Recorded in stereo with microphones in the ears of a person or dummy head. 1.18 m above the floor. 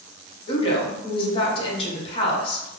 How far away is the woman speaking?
About 0.8 m.